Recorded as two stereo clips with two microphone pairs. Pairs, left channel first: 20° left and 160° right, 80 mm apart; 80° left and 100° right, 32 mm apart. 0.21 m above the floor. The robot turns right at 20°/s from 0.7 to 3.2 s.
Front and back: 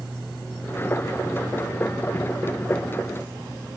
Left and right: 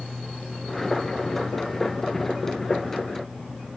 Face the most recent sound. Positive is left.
No sound to turn to.